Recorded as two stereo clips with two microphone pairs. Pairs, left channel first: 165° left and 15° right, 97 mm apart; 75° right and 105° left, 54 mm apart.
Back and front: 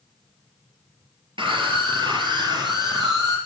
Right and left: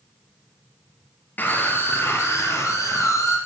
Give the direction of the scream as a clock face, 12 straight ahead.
1 o'clock.